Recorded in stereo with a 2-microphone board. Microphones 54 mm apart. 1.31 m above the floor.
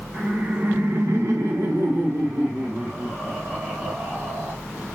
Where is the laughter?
25° right (ahead or behind), 1.0 m.